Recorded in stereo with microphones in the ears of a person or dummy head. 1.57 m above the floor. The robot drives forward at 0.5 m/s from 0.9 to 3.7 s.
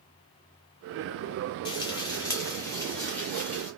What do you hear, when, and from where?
1.6 s frying: 25° left (ahead or behind), 0.5 m; by 3.7 s 10° left (ahead or behind), 1.5 m